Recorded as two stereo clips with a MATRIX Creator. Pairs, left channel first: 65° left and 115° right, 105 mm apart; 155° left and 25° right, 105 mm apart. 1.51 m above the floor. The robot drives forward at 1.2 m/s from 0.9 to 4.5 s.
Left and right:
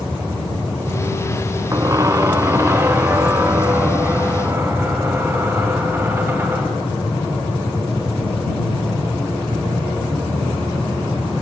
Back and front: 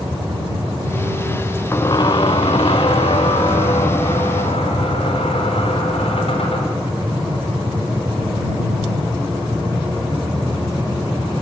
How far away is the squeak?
About 0.6 m.